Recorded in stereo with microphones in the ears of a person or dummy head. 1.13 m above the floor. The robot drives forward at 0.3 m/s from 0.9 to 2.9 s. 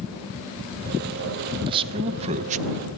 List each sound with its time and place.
1.7 s a man speaking: 25° right (ahead or behind), 0.9 m; by 2.6 s 40° right (ahead or behind), 0.6 m